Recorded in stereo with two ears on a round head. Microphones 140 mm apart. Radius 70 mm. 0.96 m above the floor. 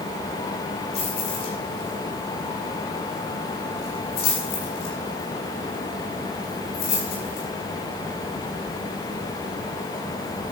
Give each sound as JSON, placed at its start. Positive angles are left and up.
{"t": 0.9, "sound": "keys jangling", "side_deg": 75, "distance_m": 8.5}